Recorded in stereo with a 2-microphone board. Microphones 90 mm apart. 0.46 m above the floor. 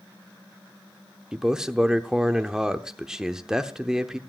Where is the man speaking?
5° right (ahead or behind), 0.7 m.